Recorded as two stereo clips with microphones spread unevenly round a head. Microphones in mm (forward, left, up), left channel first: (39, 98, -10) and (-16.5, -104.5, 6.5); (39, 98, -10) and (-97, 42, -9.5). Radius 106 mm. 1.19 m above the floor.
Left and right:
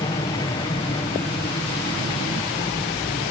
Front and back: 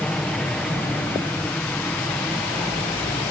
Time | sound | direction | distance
0.0 | an aircraft | 100° left | ?